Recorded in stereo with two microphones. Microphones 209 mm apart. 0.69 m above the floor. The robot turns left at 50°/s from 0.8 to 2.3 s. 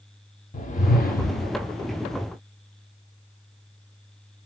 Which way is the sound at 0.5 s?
120° left.